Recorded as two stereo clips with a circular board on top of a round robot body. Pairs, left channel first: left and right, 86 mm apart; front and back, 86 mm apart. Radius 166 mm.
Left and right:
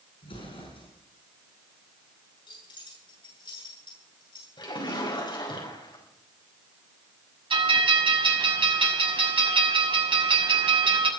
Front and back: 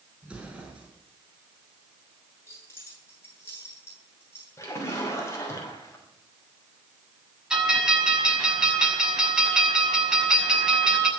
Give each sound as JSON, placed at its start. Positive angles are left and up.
{"t": 0.2, "sound": "an explosion", "azimuth_deg": 100, "distance_m": 8.5}
{"t": 2.5, "sound": "keys jangling", "azimuth_deg": 65, "distance_m": 8.0}
{"t": 4.6, "sound": "a splash", "azimuth_deg": 60, "distance_m": 5.5}
{"t": 7.5, "sound": "a bell", "azimuth_deg": -95, "distance_m": 6.0}